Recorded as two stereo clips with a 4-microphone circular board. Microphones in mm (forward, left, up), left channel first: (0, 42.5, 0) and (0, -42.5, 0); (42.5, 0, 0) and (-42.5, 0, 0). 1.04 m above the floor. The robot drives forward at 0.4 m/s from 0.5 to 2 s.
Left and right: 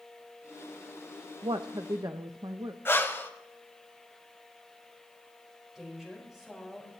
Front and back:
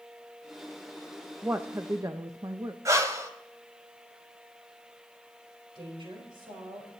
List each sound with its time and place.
1.4 s a woman speaking: 110° right, 0.5 m; by 2.8 s 130° right, 0.6 m
2.9 s breathing: 145° left, 1.1 m
5.8 s a woman speaking: 175° right, 4.5 m